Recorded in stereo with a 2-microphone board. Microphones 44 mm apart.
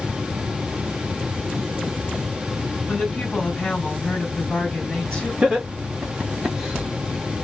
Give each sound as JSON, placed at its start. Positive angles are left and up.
{"t": 2.9, "sound": "a woman speaking", "side_deg": 25, "distance_m": 1.9}
{"t": 5.4, "sound": "laughter", "side_deg": -20, "distance_m": 1.5}